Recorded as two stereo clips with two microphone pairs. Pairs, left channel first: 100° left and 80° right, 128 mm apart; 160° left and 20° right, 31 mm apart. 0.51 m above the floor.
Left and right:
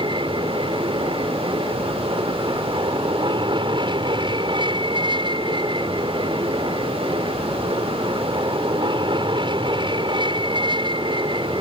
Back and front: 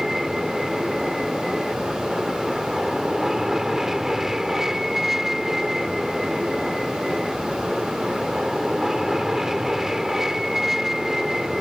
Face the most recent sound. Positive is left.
turn(degrees=-90)